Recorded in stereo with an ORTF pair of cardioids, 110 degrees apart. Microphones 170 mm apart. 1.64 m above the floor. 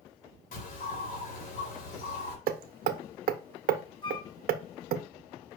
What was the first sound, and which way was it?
A bird, 60° left.